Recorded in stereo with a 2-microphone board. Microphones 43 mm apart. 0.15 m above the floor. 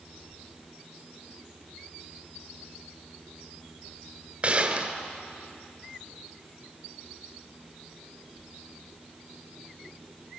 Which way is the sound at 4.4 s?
35° right (ahead or behind).